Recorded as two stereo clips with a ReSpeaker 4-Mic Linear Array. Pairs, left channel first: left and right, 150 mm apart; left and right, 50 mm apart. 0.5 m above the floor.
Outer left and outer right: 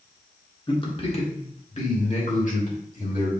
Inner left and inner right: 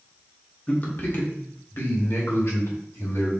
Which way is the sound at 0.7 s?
30° left (ahead or behind).